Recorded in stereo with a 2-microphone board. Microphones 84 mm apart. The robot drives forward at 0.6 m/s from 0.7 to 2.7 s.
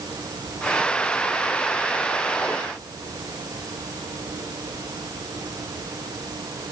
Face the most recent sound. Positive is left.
No sound to turn to.